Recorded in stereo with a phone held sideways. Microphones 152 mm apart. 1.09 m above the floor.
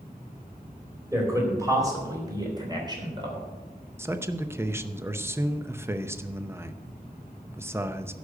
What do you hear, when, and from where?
1.1 s a man speaking: 20° right (ahead or behind), 4 m; by 3.5 s 30° right (ahead or behind), 3 m
4.0 s a man speaking: 15° right (ahead or behind), 0.7 m